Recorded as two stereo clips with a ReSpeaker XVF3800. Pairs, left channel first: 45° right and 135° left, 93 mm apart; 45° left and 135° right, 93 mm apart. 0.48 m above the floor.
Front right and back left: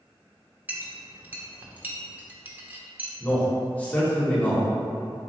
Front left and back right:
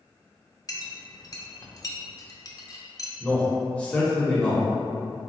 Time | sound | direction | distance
0.7 | a clink | 70° left | 0.7 m
3.2 | a man speaking | 5° right | 1.1 m